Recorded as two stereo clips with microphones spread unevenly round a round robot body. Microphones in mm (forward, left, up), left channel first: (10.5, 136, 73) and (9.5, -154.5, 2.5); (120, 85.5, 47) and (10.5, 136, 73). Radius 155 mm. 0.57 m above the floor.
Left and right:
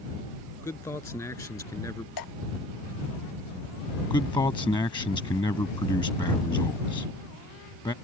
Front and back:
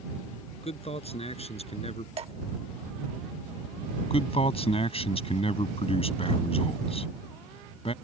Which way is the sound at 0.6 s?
10° left.